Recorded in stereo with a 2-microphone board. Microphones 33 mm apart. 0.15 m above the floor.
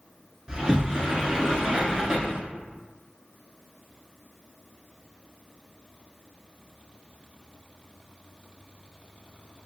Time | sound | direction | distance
0.5 | a sliding door | 25° right (ahead or behind) | 0.8 m